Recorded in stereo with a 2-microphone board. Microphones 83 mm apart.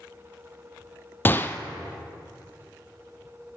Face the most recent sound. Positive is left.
turn(degrees=25)  # may be behind; listen again after turning